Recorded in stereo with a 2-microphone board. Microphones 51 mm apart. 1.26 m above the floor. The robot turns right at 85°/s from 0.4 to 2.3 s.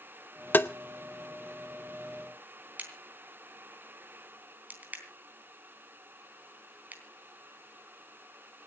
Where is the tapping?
40° left (ahead or behind), 0.6 m; by 0.7 s 50° left (ahead or behind), 0.6 m.